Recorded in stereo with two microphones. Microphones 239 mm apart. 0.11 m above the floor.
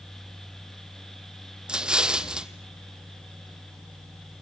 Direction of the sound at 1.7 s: 5° right (ahead or behind).